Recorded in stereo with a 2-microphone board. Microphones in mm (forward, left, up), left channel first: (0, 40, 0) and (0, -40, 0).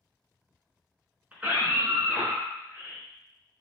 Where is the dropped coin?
No dropped coin in this recording.